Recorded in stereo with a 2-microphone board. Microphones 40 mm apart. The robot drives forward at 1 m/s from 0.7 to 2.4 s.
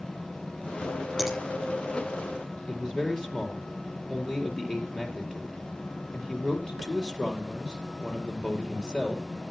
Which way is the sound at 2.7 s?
15° left (ahead or behind).